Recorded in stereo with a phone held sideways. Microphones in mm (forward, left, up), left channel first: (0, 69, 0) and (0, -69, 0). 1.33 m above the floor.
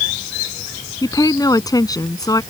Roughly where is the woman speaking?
Left.